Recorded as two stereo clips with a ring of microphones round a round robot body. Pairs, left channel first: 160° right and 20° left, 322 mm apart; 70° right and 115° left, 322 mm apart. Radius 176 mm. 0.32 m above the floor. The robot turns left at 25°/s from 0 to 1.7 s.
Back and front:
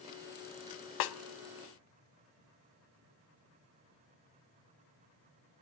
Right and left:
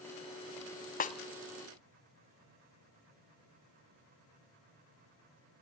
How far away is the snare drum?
About 0.9 m.